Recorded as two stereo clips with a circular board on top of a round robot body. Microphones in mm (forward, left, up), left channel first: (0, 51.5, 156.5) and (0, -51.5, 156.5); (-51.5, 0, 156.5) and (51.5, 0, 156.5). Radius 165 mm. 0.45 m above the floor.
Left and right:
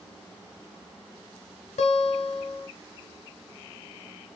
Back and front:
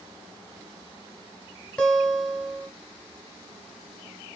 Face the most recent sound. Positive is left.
turn(degrees=100)